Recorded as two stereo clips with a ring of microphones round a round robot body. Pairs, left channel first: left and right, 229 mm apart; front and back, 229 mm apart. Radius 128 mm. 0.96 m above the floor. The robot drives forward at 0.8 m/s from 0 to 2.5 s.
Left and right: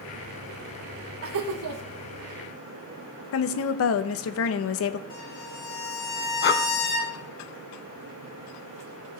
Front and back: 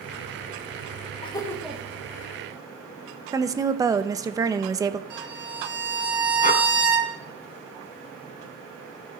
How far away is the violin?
About 4 m.